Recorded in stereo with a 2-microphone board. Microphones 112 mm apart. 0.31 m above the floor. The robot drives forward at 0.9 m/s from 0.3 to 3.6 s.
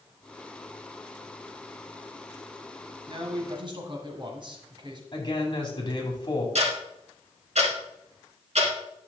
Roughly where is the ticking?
Right.